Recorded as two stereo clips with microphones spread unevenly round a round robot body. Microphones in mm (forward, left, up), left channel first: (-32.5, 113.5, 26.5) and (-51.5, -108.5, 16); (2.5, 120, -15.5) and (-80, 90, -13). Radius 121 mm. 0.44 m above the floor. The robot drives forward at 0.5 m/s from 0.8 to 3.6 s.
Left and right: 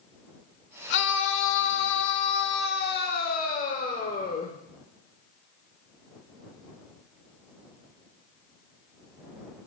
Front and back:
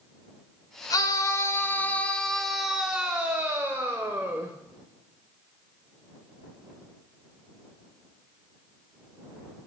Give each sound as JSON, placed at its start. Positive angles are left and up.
{"t": 0.9, "sound": "a scream", "azimuth_deg": 50, "distance_m": 1.2}